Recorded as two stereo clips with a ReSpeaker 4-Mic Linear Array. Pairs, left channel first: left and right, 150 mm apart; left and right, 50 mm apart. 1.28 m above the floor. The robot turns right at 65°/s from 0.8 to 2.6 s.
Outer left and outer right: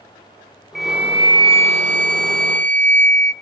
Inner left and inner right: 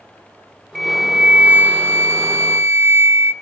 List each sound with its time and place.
0.8 s a flute: straight behind, 0.9 m; by 3.3 s 65° right, 0.9 m